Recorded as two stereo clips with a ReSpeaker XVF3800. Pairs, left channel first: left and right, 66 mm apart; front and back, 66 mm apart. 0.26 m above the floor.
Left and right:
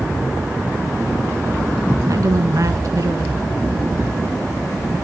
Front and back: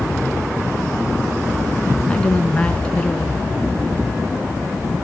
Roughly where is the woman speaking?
Right.